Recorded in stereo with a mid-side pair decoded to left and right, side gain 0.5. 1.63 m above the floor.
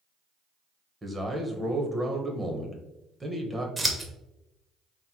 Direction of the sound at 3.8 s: 15° right.